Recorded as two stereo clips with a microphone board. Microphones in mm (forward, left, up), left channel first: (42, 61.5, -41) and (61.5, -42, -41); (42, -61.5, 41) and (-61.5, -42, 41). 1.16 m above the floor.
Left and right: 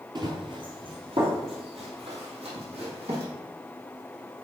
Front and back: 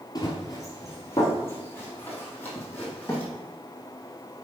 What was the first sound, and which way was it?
Running footsteps, 50° right.